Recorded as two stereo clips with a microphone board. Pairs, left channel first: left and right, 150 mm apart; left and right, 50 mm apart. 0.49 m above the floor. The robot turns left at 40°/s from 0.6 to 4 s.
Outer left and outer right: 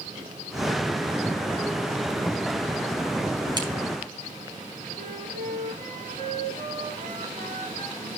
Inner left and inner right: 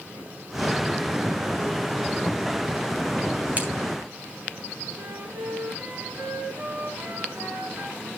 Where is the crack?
30° right (ahead or behind), 4 m; by 3.7 s 25° right (ahead or behind), 4 m.